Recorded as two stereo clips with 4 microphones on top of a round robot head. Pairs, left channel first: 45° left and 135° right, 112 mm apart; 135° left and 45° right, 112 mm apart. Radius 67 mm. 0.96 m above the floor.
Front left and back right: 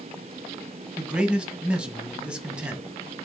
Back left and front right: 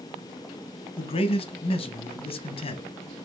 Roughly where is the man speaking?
Behind left.